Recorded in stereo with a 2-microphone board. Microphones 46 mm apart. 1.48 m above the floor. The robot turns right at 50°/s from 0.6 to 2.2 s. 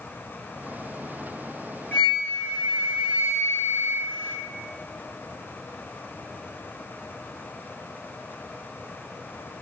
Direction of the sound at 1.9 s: 30° left (ahead or behind).